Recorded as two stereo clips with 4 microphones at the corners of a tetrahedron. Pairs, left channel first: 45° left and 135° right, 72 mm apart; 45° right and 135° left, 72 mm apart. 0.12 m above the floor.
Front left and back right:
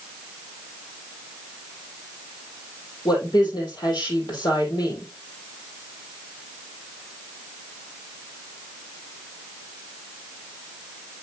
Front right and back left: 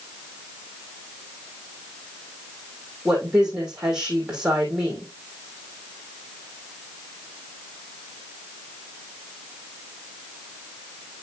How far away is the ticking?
No ticking in this recording.